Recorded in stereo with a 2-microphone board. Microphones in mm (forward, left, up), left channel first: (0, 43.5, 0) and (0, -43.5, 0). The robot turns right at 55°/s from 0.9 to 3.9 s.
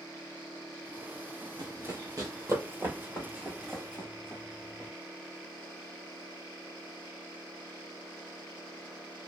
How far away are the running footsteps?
About 1.0 m.